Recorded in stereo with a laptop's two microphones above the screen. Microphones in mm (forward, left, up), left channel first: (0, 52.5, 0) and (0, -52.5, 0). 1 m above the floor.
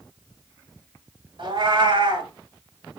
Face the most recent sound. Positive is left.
turn(degrees=-55)  # may be behind; listen again after turning